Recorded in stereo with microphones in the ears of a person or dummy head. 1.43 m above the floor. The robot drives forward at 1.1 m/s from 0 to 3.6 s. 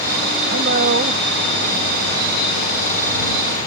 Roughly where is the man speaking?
Right.